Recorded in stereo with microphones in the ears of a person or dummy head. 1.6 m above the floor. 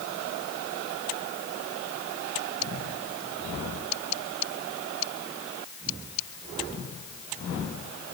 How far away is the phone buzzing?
I don't hear a phone buzzing.